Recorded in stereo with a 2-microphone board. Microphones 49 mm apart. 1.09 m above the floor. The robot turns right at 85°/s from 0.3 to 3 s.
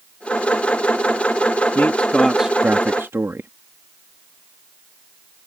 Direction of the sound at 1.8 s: 130° left.